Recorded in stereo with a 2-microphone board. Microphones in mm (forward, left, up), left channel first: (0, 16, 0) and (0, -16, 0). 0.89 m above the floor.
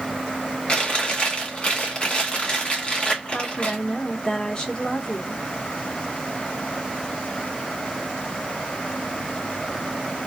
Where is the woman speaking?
30° left (ahead or behind), 1.4 m.